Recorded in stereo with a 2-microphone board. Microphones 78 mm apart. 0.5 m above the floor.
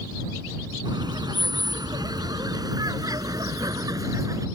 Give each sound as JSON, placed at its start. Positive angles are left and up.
{"t": 0.8, "sound": "laughter", "side_deg": -65}